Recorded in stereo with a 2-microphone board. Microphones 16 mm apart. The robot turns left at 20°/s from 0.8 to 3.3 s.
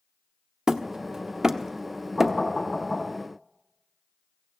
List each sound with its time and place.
0.7 s hammering: 45° right (ahead or behind), 0.7 m; by 2.4 s 20° right (ahead or behind), 0.7 m
2.2 s knocking: 45° left (ahead or behind), 10 m; by 3.1 s 30° left (ahead or behind), 10 m